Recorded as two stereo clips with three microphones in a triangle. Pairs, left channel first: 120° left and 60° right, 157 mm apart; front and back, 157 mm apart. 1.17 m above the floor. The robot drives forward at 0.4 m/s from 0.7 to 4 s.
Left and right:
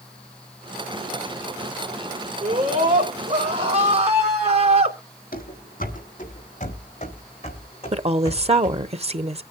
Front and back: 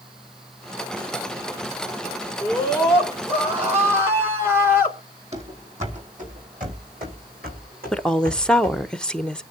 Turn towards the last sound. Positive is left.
turn(degrees=-85)